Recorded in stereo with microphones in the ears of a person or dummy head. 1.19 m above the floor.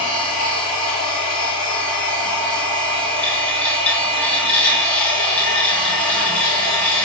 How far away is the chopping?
I don't hear chopping.